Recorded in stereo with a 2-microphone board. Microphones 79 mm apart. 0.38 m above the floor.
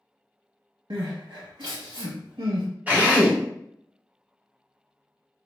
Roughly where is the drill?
Right.